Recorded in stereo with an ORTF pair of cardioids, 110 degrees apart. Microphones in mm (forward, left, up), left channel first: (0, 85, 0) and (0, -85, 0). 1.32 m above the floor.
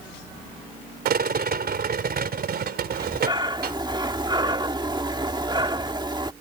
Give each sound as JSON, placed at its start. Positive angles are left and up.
{"t": 1.1, "sound": "a rattle", "azimuth_deg": -65}
{"t": 2.9, "sound": "breathing", "azimuth_deg": -25}